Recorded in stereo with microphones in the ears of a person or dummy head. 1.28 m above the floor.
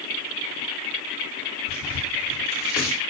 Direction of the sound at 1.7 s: 10° right (ahead or behind).